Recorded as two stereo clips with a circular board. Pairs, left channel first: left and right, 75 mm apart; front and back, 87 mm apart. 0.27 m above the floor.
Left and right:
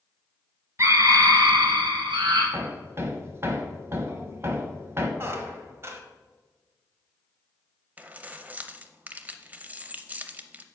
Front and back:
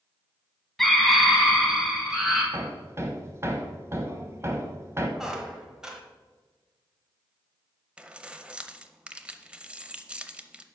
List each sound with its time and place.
0.8 s a scream: 85° right, 1.2 m; by 2.4 s 95° right, 2.5 m
2.5 s hammering: 135° right, 1.0 m
5.2 s a squeak: 100° right, 1.1 m
8.0 s keys jangling: 120° right, 0.6 m